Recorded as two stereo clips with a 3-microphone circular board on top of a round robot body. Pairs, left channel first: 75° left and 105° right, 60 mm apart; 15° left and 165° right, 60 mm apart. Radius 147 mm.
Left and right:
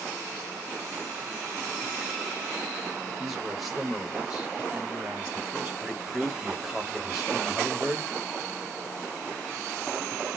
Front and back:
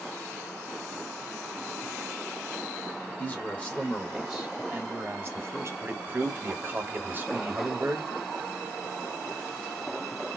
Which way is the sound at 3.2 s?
20° right.